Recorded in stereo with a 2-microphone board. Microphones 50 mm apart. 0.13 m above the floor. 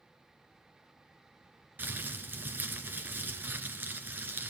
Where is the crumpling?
40° right (ahead or behind), 2.0 m.